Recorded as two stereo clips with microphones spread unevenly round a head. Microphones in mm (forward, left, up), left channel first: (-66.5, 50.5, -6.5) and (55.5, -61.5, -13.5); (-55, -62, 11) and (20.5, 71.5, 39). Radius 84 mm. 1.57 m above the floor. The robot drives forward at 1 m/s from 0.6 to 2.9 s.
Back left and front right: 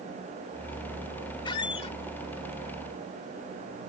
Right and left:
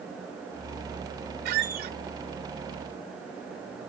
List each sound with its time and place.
1.4 s a squeak: 75° left; by 2.0 s 85° left